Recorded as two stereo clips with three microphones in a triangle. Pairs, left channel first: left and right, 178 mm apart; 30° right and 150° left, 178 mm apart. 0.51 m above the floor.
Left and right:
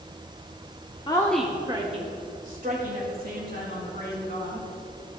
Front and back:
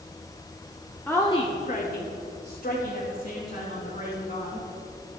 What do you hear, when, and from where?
1.1 s a woman speaking: 45° left, 1.0 m; by 4.7 s 65° right, 5 m